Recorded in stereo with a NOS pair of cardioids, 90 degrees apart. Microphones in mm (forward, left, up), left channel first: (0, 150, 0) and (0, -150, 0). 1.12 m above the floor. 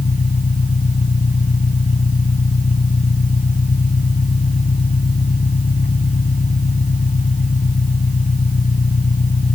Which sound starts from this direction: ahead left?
An engine running, at 0.0 s.